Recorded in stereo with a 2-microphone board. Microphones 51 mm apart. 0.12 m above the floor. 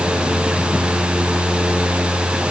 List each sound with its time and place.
Only background noise.